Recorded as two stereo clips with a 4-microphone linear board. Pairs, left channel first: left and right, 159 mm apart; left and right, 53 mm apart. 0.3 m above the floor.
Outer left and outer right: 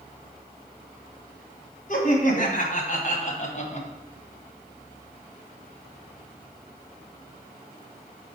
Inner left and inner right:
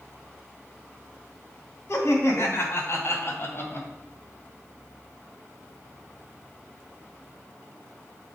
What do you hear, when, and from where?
1.9 s laughter: 55° left (ahead or behind), 2.5 m; by 3.9 s 45° left (ahead or behind), 2.0 m